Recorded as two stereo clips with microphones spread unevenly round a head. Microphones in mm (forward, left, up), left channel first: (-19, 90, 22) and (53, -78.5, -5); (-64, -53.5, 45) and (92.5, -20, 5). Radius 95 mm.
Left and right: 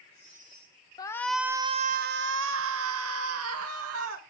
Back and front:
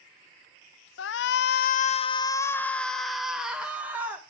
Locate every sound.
1.0 s a shout: 175° right, 0.6 m; by 4.2 s 70° right, 1.6 m